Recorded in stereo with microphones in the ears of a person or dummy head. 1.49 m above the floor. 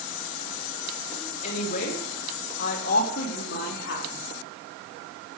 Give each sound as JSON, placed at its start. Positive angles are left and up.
{"t": 1.4, "sound": "a woman speaking", "side_deg": 55, "distance_m": 3.0}